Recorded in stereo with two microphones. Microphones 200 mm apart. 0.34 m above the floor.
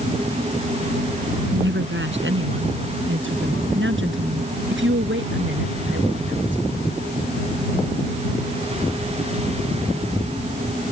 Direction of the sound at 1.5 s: 70° right (ahead or behind).